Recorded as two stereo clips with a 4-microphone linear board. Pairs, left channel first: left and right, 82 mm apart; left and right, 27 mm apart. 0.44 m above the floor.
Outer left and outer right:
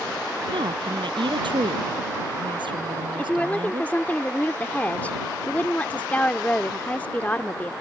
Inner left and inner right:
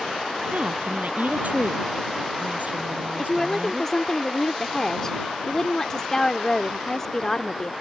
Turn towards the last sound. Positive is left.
turn(degrees=20)  # may be behind; listen again after turning